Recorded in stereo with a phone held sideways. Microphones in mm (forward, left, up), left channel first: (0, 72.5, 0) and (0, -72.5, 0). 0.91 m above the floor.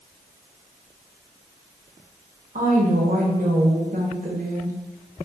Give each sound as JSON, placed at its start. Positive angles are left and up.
{"t": 2.5, "sound": "a woman speaking", "side_deg": -65, "distance_m": 0.9}